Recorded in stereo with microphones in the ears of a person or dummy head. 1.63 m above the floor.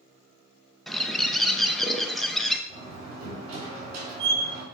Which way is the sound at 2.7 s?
35° right (ahead or behind).